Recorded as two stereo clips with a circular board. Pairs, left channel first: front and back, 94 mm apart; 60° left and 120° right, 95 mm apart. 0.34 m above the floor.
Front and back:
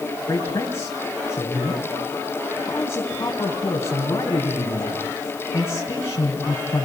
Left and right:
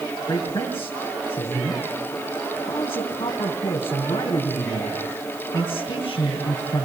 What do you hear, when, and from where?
0.3 s a man speaking: 60° left, 3 m